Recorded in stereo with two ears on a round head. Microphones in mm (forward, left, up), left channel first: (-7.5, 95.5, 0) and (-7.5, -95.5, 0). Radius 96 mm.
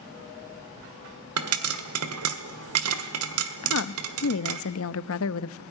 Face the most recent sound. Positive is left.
turn(degrees=70)  # may be behind; listen again after turning